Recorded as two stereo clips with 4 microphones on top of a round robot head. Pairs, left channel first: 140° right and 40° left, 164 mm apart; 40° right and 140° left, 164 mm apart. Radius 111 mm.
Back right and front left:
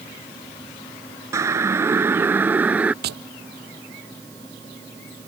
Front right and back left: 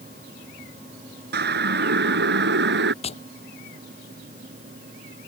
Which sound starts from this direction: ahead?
Tapping, at 3.0 s.